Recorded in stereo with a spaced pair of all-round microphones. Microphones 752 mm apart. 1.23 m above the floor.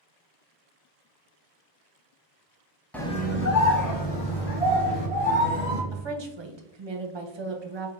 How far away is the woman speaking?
About 0.6 m.